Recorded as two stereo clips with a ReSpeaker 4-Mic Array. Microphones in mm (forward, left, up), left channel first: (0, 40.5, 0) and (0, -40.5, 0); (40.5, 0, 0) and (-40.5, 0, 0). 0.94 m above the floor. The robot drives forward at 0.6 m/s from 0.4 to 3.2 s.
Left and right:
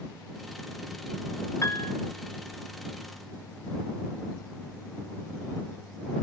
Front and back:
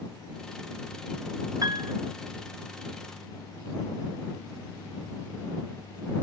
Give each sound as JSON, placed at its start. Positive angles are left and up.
{"t": 1.6, "sound": "a piano", "azimuth_deg": 140, "distance_m": 0.8}